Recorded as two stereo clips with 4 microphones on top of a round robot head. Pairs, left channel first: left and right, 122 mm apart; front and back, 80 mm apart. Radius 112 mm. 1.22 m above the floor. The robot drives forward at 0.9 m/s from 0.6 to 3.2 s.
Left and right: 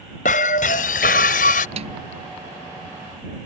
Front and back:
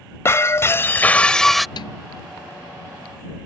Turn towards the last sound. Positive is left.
turn(degrees=-50)